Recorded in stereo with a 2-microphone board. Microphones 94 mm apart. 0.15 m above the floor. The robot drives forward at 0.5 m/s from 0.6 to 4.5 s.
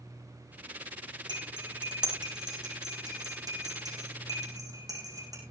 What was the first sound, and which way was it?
Cutlery clinking, 50° right (ahead or behind).